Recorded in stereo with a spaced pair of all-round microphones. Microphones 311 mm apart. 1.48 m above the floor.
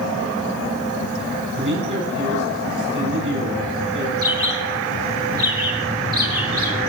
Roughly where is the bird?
Right.